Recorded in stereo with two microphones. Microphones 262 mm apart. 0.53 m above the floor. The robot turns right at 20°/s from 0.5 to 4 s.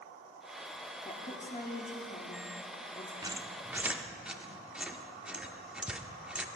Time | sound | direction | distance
1.1 | a woman speaking | 25° left (ahead or behind) | 0.8 m
3.2 | a squeak | 15° right (ahead or behind) | 0.6 m